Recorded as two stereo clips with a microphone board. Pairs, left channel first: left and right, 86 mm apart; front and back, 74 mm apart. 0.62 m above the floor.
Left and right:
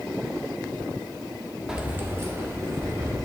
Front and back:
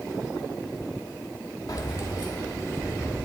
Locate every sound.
1.7 s keys jangling: 10° right, 0.8 m; by 3.2 s 45° right, 2.5 m